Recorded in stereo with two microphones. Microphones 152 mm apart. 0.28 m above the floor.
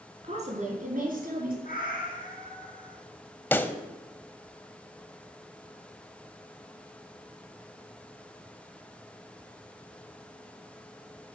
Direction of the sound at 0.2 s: 45° right (ahead or behind).